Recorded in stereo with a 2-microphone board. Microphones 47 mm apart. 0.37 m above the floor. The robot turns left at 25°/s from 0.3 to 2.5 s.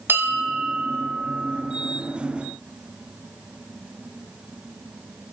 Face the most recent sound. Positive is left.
turn(degrees=-120)